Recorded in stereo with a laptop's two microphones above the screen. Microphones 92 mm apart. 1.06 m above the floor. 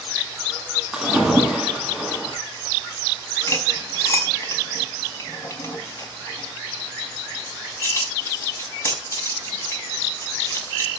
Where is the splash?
5° right (ahead or behind), 8.5 m.